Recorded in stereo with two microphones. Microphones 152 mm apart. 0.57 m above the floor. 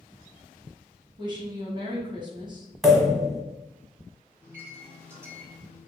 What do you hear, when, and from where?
1.2 s a woman speaking: 30° right (ahead or behind), 0.9 m
2.8 s a pop: centre (ahead or behind), 0.9 m
4.4 s a microwave: 15° right (ahead or behind), 1.3 m